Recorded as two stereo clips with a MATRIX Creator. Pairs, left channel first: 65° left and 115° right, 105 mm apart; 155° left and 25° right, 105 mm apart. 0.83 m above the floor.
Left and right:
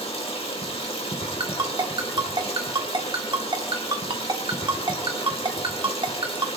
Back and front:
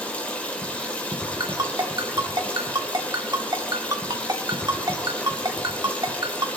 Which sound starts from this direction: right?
A ringtone, at 1.4 s.